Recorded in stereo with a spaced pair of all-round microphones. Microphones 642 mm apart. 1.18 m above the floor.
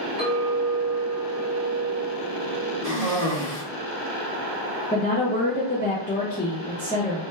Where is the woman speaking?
15° left (ahead or behind), 0.5 m.